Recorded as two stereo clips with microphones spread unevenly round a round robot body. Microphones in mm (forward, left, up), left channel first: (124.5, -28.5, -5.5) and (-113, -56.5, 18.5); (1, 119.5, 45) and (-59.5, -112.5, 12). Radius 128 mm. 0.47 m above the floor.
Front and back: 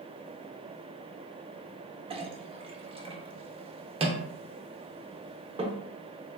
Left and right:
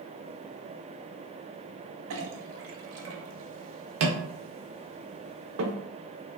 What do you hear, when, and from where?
2.1 s a clink: 105° right, 0.5 m